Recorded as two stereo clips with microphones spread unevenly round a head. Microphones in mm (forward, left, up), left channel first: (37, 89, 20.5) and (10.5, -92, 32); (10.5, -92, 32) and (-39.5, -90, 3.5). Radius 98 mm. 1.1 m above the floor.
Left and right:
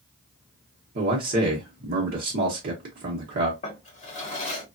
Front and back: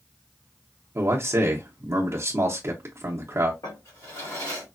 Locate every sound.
0.9 s a man speaking: 150° right, 0.8 m
3.6 s a drawer: 25° left, 1.3 m